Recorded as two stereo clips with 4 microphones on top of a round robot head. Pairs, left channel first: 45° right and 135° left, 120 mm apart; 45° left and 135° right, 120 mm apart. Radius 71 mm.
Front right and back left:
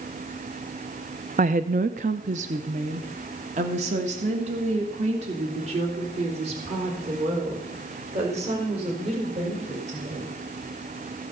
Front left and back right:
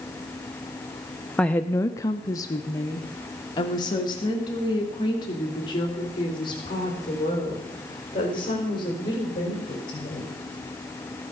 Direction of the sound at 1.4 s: 125° left.